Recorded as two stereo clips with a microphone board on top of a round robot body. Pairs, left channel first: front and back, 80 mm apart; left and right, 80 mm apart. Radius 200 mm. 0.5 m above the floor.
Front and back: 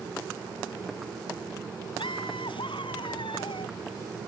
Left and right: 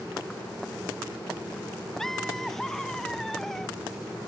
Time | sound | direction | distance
2.0 | laughter | 5° left | ?